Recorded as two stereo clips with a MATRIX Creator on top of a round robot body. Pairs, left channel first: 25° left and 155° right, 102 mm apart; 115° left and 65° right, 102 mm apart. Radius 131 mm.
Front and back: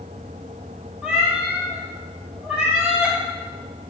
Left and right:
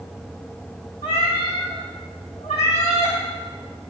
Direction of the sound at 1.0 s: 125° left.